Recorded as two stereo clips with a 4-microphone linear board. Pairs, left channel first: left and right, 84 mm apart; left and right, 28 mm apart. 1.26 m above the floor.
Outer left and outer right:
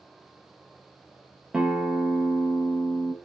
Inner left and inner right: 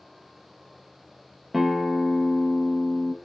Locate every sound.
1.5 s a guitar: 10° right (ahead or behind), 0.9 m